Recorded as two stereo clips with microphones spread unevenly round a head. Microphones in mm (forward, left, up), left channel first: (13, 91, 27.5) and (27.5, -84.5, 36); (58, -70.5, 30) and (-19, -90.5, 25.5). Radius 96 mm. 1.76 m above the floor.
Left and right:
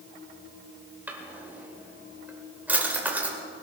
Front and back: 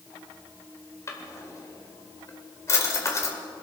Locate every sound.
1.1 s a drawer: 10° right, 1.9 m